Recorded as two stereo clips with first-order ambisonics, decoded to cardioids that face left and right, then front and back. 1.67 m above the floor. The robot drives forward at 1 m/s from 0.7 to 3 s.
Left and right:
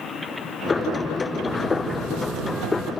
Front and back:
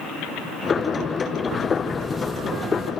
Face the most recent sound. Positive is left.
turn(degrees=-115)